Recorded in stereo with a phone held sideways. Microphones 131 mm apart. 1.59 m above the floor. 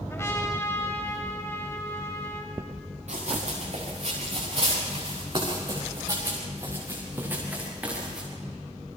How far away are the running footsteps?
About 6.5 m.